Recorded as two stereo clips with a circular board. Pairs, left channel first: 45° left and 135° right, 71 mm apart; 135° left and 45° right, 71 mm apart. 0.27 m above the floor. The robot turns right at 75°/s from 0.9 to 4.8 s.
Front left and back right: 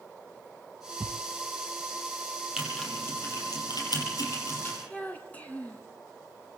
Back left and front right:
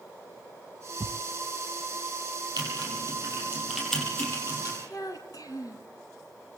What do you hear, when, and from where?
1.0 s a thud: 80° right, 0.9 m; by 1.2 s 65° right, 0.9 m
2.6 s typing on a keyboard: 55° right, 9 m; by 4.8 s 115° left, 9 m
4.9 s a child speaking: 115° left, 2.5 m